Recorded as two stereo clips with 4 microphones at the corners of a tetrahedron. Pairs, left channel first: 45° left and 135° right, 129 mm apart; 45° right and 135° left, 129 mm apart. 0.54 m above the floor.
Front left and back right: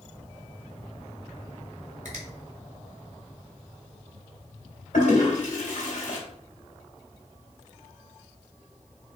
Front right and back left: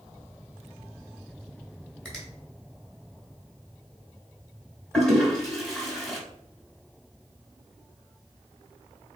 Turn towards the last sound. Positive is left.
turn(degrees=40)